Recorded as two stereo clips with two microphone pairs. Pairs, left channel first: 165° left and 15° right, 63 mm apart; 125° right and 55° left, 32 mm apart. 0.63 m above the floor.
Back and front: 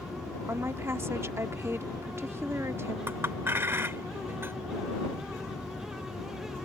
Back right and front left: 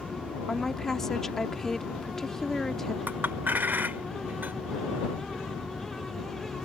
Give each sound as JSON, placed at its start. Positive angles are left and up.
{"t": 0.5, "sound": "a woman speaking", "azimuth_deg": -50}
{"t": 3.1, "sound": "a clink", "azimuth_deg": 35}